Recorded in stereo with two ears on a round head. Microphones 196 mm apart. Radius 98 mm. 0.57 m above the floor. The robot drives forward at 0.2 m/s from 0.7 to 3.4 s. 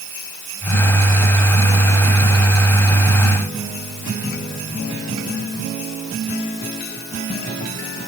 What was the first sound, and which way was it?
Only background noise.